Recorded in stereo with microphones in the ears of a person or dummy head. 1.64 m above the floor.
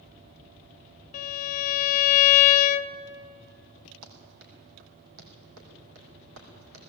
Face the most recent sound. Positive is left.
turn(degrees=-70)  # may be behind; listen again after turning